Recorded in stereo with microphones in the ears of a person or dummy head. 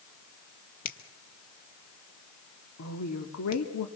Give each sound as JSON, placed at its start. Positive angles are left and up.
{"t": 0.8, "sound": "a finger snap", "side_deg": 45, "distance_m": 1.8}
{"t": 2.8, "sound": "a woman speaking", "side_deg": 75, "distance_m": 2.0}